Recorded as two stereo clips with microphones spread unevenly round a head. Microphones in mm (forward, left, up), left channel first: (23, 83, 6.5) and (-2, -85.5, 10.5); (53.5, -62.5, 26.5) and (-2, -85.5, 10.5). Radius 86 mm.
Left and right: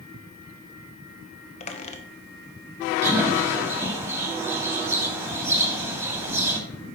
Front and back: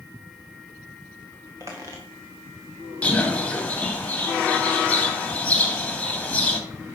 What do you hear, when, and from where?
1.6 s a squeak: 130° left, 1.1 m
3.0 s a bird: 25° right, 1.9 m